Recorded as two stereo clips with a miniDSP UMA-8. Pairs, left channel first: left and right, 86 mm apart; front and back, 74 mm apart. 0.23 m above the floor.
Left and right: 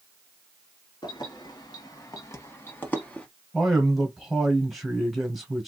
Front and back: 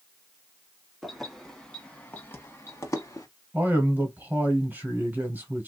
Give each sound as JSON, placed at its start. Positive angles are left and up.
{"t": 1.0, "sound": "keys jangling", "azimuth_deg": 90, "distance_m": 1.3}
{"t": 3.5, "sound": "a man speaking", "azimuth_deg": -175, "distance_m": 1.7}